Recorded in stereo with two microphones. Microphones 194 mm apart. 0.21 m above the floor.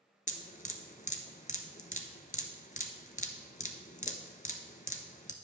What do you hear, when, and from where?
0.3 s dripping: 45° left (ahead or behind), 0.7 m